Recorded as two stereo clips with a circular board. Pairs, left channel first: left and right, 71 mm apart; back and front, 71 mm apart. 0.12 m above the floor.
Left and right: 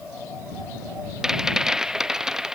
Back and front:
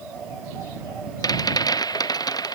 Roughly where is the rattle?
Behind.